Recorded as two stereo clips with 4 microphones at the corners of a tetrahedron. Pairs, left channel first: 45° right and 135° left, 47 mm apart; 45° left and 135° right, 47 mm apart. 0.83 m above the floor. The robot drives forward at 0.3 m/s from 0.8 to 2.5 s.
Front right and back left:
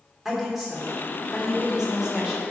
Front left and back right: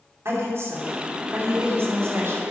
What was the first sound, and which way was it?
A woman speaking, 145° right.